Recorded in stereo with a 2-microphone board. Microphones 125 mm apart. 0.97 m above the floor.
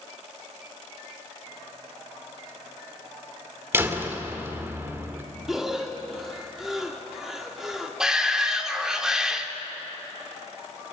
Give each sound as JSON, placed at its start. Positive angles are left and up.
{"t": 3.7, "sound": "a door slam", "side_deg": -20, "distance_m": 2.0}
{"t": 5.5, "sound": "breathing", "side_deg": 0, "distance_m": 2.5}
{"t": 8.0, "sound": "a shout", "side_deg": -5, "distance_m": 2.5}